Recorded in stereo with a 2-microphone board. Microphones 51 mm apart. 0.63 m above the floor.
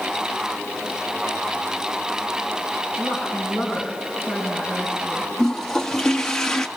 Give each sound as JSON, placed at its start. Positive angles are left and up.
{"t": 3.0, "sound": "a woman speaking", "side_deg": -20, "distance_m": 6.0}
{"t": 5.4, "sound": "a toilet flushing", "side_deg": 10, "distance_m": 1.2}